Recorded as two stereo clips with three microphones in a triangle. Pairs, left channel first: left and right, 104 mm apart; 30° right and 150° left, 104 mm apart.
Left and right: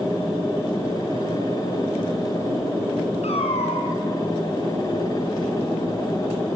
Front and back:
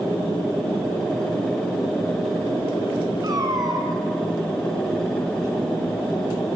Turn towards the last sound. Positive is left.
turn(degrees=100)